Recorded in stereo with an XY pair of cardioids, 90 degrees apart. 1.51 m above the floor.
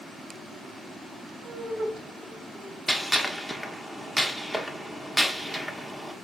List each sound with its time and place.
1.4 s laughter: 70° right, 1.4 m
2.9 s a gunshot: 5° left, 0.8 m